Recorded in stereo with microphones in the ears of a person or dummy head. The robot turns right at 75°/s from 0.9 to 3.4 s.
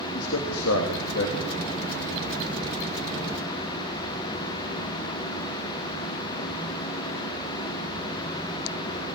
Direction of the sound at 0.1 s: 95° left.